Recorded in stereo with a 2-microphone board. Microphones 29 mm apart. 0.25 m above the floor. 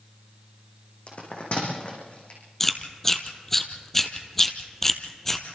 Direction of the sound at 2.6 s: 10° left (ahead or behind).